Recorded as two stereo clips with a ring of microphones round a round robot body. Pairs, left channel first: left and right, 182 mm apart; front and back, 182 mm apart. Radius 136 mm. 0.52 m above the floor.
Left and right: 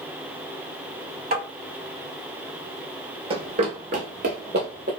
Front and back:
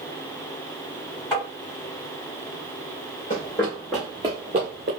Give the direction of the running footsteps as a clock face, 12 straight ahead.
1 o'clock.